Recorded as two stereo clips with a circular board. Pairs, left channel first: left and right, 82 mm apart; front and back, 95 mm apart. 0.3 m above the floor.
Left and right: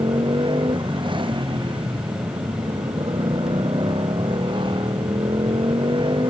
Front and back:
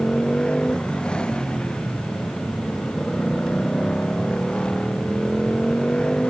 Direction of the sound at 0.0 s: 80° right.